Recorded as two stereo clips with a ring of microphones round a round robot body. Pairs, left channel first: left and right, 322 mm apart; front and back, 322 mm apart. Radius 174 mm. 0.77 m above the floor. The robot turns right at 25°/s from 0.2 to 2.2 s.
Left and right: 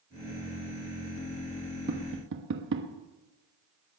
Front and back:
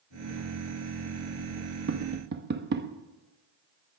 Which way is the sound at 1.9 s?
140° right.